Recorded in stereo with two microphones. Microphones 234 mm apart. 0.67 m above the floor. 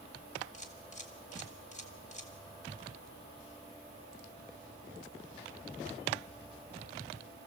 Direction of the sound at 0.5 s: 30° left (ahead or behind).